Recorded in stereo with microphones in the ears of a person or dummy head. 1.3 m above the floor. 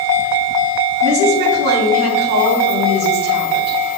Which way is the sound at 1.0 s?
65° right (ahead or behind).